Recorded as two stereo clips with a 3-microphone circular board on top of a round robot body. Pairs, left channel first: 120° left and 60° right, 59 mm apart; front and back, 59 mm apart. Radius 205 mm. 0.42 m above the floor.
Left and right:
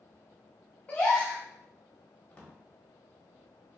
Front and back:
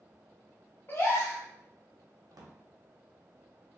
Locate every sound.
0.9 s a gasp: 55° left, 0.6 m
2.3 s a drawer: 170° right, 0.9 m